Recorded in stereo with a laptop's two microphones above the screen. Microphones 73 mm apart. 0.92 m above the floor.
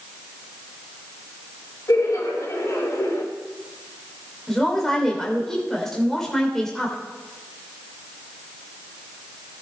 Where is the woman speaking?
5° left (ahead or behind), 2.5 m.